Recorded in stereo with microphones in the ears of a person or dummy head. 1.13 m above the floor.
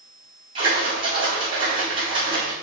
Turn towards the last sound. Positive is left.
turn(degrees=-20)  # may be behind; listen again after turning